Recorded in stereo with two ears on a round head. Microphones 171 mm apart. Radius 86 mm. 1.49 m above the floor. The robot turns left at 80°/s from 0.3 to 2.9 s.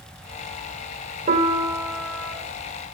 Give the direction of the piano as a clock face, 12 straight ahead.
4 o'clock.